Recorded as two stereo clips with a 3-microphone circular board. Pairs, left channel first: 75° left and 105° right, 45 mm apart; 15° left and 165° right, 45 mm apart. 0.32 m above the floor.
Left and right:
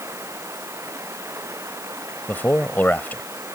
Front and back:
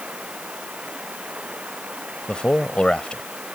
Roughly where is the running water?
Right.